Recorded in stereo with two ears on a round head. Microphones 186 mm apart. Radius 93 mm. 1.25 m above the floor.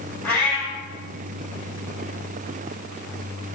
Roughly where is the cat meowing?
Centre.